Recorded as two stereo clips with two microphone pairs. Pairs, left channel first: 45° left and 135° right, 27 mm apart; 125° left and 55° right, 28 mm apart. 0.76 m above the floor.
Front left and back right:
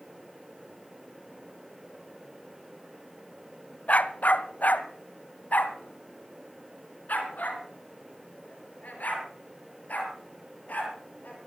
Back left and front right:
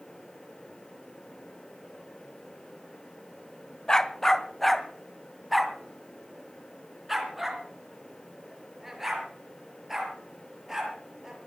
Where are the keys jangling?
No keys jangling in this recording.